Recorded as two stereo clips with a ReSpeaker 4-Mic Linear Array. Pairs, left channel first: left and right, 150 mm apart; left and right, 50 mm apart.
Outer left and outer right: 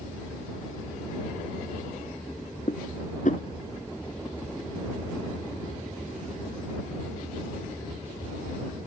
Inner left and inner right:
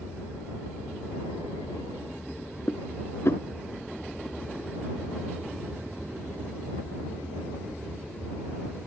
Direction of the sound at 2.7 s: 60° left (ahead or behind).